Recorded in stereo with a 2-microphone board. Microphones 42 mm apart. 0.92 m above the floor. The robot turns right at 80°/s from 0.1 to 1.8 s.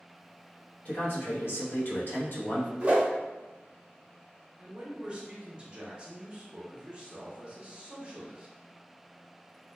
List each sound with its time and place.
0.8 s a man speaking: 45° left, 0.9 m; by 2.7 s 120° left, 0.9 m
2.8 s a whoosh: 35° right (ahead or behind), 0.8 m
4.6 s a man speaking: 20° right (ahead or behind), 0.7 m